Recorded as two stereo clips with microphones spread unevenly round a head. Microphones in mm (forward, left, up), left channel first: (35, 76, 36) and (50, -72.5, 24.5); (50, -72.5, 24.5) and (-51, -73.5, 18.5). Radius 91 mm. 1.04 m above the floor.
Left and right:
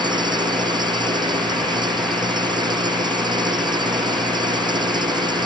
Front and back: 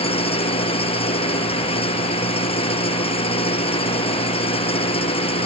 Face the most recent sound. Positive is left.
turn(degrees=-25)